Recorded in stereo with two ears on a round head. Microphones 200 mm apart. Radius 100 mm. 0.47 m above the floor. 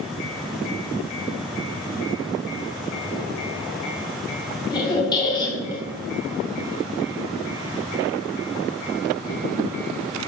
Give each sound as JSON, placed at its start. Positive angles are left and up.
{"t": 4.7, "sound": "a squeak", "side_deg": 20, "distance_m": 0.8}